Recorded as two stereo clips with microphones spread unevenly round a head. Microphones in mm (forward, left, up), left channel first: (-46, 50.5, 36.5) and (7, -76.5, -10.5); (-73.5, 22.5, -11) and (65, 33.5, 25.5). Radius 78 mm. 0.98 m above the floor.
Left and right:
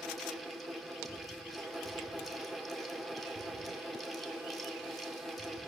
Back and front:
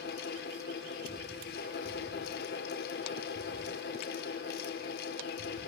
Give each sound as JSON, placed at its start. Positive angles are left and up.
{"t": 0.0, "sound": "a fan", "azimuth_deg": -155, "distance_m": 1.9}